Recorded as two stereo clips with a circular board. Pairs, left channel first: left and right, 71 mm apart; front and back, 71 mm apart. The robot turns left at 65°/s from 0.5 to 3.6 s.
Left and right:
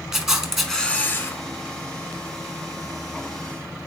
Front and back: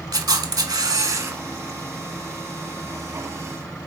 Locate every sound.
0.1 s a camera shutter: 175° right, 0.6 m; by 1.4 s 130° left, 0.6 m